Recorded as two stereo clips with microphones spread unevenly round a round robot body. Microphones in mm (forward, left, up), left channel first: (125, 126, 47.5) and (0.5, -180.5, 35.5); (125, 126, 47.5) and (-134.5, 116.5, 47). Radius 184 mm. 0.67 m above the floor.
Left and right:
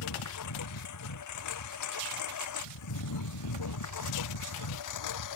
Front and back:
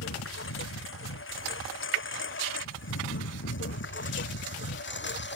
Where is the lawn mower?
35° left; by 5.4 s 45° left.